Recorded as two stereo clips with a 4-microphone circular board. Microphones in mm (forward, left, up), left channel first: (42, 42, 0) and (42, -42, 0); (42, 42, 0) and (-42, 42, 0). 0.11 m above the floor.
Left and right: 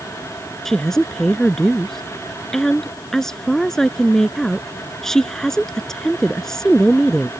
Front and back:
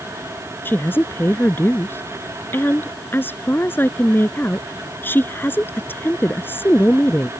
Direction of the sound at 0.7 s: 15° left.